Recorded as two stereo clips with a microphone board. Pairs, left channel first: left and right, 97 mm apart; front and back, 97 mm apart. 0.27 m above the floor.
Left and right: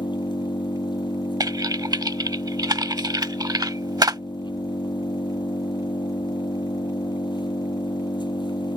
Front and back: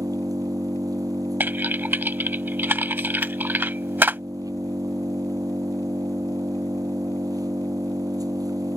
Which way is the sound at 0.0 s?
130° left.